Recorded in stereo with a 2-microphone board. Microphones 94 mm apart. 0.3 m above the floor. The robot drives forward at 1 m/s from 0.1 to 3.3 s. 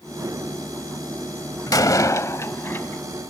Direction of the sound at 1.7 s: 40° left (ahead or behind).